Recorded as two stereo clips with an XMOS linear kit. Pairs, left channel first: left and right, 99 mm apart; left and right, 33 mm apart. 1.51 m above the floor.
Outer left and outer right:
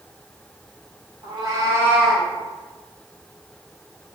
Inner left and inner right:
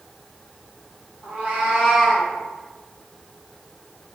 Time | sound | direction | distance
1.2 | a cat meowing | 50° right (ahead or behind) | 1.4 m